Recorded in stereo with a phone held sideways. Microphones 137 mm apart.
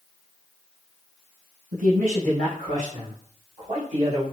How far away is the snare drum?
No snare drum in this recording.